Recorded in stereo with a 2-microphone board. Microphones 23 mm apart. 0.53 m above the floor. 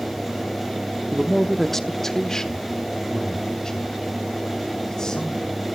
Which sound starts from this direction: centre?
A man speaking, at 1.1 s.